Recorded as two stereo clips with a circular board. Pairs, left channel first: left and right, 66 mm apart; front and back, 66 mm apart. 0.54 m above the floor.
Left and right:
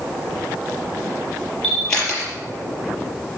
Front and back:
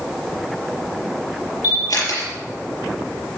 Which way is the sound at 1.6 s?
10° left.